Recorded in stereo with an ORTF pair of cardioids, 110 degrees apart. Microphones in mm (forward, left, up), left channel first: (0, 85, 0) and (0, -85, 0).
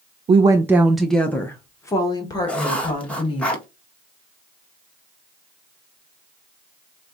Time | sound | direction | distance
0.3 | a woman speaking | 35° right | 0.6 m
2.5 | writing | 5° left | 1.7 m